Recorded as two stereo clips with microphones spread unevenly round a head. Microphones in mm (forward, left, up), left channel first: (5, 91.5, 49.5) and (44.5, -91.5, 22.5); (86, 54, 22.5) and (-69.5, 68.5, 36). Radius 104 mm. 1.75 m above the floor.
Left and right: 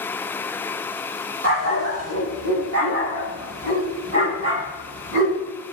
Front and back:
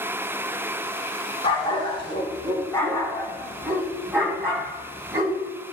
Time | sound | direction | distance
1.4 | a dog barking | 65° right | 4.5 m